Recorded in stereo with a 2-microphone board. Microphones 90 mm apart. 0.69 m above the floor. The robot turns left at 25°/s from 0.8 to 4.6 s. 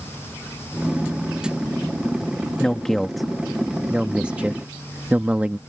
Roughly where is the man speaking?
Centre.